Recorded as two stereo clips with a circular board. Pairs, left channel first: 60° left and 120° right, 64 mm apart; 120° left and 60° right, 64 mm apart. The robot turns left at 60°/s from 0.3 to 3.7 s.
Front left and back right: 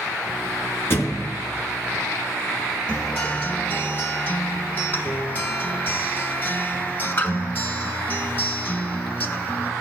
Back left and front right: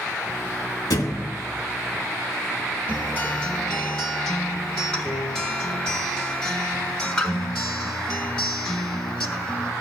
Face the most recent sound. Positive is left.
turn(degrees=55)